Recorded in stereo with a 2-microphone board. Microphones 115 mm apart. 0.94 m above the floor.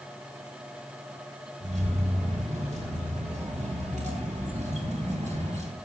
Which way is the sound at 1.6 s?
80° right.